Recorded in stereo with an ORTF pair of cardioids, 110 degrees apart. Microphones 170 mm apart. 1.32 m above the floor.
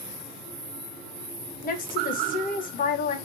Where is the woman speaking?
55° left, 1.0 m.